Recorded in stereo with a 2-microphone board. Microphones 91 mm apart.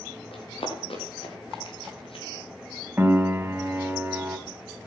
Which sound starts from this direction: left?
Running footsteps, at 0.3 s.